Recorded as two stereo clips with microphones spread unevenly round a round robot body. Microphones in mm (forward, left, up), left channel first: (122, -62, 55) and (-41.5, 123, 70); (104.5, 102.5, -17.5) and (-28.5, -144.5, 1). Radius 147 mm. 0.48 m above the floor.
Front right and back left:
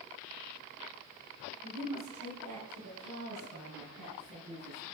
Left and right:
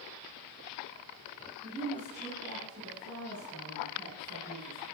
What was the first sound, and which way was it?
A woman speaking, 155° left.